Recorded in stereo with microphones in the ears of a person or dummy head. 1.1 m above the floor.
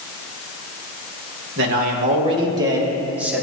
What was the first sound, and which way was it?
A man speaking, 60° right (ahead or behind).